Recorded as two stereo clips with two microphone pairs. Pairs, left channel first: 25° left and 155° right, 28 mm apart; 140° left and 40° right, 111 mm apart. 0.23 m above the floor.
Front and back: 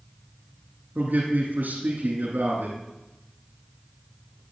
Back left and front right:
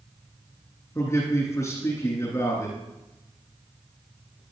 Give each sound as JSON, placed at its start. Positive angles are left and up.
{"t": 0.9, "sound": "a man speaking", "azimuth_deg": -160, "distance_m": 8.5}